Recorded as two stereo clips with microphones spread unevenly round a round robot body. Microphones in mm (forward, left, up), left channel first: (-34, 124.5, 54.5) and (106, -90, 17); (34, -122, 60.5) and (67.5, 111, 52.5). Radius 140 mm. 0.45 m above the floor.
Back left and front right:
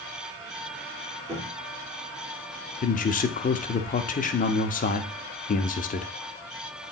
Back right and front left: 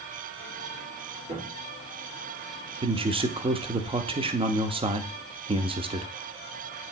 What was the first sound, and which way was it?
A cupboard door, 15° left.